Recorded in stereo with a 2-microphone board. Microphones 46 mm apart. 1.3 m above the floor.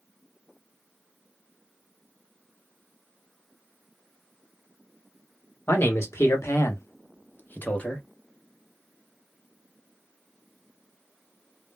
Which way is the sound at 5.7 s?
65° left (ahead or behind).